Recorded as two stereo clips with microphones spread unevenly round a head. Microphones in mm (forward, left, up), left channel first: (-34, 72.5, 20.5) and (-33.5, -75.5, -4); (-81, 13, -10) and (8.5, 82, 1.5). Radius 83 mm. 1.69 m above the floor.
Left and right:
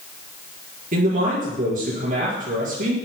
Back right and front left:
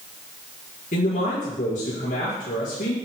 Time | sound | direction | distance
0.9 | a man speaking | 120° right | 5.5 m